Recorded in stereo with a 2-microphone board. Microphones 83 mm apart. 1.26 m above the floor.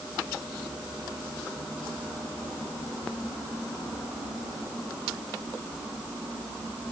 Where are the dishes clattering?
I don't hear dishes clattering.